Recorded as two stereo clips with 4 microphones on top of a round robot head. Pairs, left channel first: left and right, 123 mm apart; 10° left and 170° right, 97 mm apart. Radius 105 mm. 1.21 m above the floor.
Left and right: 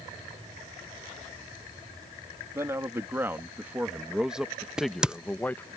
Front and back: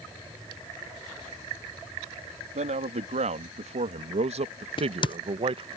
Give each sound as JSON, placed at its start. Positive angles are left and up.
{"t": 2.5, "sound": "a man speaking", "azimuth_deg": -165}
{"t": 4.8, "sound": "a crack", "azimuth_deg": -5}